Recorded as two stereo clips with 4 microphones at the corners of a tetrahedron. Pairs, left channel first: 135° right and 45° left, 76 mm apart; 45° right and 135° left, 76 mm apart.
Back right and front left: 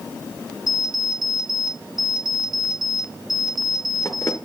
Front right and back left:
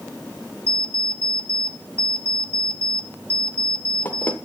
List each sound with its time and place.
0.7 s an alarm clock: 105° right, 1.6 m